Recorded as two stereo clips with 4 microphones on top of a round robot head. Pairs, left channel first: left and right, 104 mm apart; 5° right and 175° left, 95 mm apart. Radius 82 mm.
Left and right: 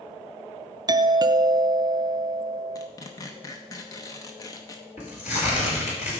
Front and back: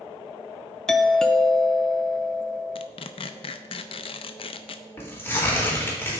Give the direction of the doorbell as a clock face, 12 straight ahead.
3 o'clock.